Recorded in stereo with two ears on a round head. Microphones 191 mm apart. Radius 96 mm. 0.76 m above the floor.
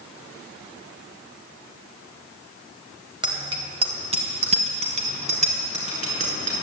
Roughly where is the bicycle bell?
Right.